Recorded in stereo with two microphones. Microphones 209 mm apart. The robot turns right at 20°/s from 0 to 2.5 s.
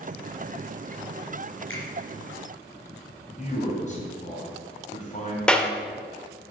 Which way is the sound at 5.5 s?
5° left (ahead or behind).